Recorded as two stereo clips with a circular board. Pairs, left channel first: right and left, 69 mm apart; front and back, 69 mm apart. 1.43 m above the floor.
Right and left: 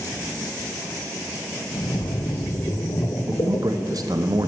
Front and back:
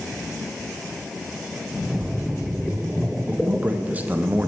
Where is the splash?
95° right, 0.5 m.